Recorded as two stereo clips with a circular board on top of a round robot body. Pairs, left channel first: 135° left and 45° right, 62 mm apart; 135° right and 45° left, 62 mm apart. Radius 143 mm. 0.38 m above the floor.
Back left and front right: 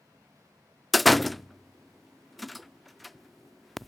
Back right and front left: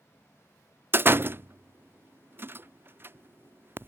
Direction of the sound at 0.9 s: 45° left.